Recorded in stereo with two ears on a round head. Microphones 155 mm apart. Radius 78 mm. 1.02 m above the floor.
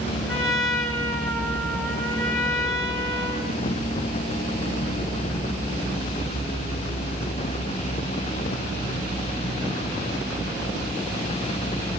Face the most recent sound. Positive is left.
turn(degrees=0)  # may be behind; listen again after turning